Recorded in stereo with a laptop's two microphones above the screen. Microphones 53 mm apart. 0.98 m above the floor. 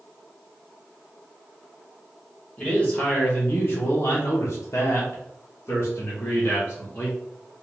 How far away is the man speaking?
About 1.0 m.